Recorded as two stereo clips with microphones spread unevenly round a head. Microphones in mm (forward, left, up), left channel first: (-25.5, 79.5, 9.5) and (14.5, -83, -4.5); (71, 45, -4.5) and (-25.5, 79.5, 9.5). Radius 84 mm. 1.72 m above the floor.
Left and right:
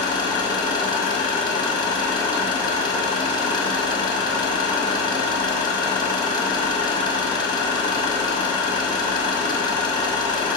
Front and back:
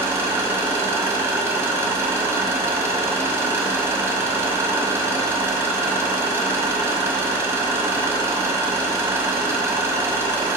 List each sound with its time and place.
0.0 s an engine running: 135° left, 1.0 m